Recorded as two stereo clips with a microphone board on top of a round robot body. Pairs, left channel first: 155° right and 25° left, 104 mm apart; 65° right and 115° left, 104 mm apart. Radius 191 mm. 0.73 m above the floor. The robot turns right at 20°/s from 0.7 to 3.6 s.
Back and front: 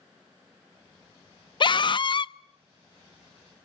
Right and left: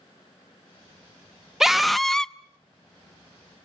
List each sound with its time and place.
1.6 s a scream: 165° right, 0.8 m; by 2.4 s 150° right, 0.8 m